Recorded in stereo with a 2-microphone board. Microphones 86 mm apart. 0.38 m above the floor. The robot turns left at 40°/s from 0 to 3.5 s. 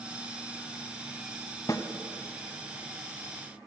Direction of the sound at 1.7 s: 45° left (ahead or behind).